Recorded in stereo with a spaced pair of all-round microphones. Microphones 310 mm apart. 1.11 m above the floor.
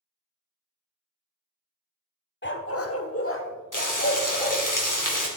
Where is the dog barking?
35° left (ahead or behind), 0.9 m; by 4.6 s 30° left (ahead or behind), 2.5 m.